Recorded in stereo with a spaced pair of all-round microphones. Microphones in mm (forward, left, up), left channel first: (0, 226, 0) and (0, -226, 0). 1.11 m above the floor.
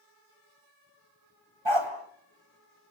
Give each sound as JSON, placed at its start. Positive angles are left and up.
{"t": 1.6, "sound": "a dog barking", "side_deg": -80, "distance_m": 3.0}